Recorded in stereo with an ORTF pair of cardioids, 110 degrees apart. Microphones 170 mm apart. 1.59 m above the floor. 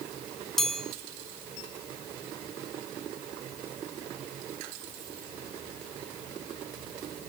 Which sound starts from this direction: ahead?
A chime, at 0.6 s.